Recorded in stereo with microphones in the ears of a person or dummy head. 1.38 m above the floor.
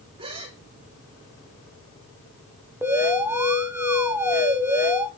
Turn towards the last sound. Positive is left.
turn(degrees=-10)  # may be behind; listen again after turning